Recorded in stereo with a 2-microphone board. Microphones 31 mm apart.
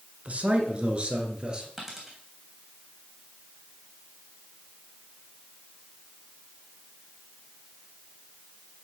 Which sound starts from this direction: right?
A man speaking, at 0.2 s.